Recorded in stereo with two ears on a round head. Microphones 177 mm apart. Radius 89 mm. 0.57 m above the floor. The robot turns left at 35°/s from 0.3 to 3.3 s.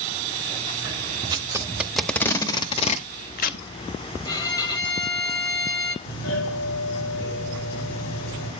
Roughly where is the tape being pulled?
Right.